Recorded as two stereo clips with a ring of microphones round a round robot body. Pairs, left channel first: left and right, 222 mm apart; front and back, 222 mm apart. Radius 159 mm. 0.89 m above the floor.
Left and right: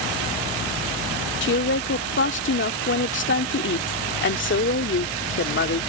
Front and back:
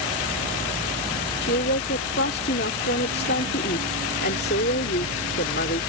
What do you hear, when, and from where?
1.4 s a woman speaking: 55° left